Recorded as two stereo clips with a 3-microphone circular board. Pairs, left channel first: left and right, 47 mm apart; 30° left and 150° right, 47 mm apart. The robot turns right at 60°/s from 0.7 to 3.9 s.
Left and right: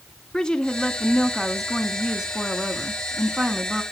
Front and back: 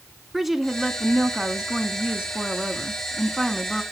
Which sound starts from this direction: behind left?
A woman speaking, at 0.3 s.